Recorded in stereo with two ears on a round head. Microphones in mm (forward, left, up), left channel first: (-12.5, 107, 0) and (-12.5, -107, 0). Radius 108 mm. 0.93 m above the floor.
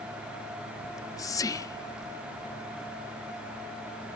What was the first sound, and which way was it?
Whispering, 15° left (ahead or behind).